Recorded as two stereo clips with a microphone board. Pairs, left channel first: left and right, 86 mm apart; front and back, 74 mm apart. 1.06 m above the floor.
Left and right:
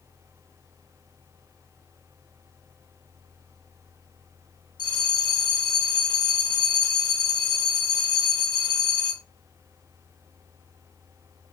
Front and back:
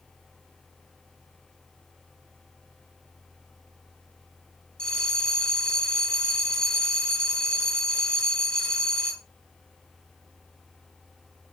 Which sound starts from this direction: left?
A bell, at 4.8 s.